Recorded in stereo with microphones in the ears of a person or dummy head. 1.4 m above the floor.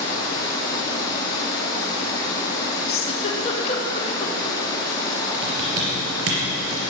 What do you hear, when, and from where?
0.0 s running water: 20° left (ahead or behind), 4.5 m
2.9 s a giggle: 30° left (ahead or behind), 2 m
5.4 s typing on a keyboard: 75° right (ahead or behind), 4.5 m